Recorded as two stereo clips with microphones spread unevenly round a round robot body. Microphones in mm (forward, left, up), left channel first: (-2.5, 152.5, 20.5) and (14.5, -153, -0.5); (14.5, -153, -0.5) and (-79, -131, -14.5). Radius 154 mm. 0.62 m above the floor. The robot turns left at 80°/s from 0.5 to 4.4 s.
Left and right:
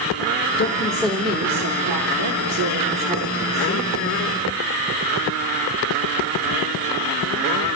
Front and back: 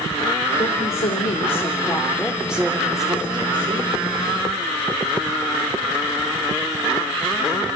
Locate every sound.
0.6 s a woman speaking: 40° left, 1.8 m; by 3.9 s 135° left, 1.8 m